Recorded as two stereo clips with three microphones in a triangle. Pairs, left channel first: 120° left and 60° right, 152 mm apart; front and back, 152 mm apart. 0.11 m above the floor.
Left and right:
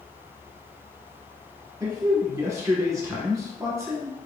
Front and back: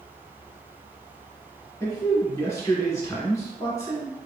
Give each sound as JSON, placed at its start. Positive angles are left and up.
{"t": 1.8, "sound": "a man speaking", "azimuth_deg": -35, "distance_m": 1.4}